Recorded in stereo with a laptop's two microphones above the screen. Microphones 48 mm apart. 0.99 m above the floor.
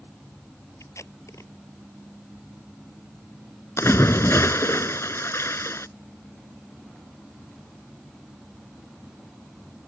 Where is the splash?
65° left (ahead or behind).